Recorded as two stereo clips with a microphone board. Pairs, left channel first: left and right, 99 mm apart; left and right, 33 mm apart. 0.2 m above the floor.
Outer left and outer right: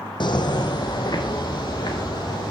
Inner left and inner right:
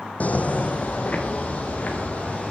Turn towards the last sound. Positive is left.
turn(degrees=40)  # may be behind; listen again after turning